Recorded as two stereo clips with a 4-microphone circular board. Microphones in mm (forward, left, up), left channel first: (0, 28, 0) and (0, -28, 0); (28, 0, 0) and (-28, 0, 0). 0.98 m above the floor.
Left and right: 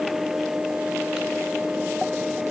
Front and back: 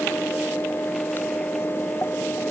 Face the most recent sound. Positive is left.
No sound to turn to.